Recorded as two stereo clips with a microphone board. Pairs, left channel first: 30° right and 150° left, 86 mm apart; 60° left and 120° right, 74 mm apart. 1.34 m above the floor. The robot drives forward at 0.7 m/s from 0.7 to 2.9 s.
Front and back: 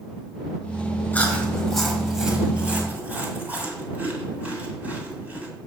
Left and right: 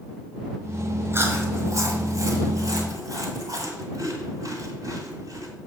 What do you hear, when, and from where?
1.1 s chewing: 90° right, 1.4 m; by 5.5 s 140° right, 1.9 m